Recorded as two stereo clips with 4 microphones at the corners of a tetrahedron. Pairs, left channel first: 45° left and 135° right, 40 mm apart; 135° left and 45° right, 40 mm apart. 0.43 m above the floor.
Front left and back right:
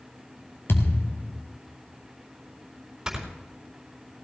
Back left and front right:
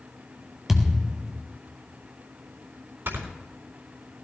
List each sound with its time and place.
0.7 s a thud: 40° left, 1.4 m
3.1 s snoring: 55° right, 4 m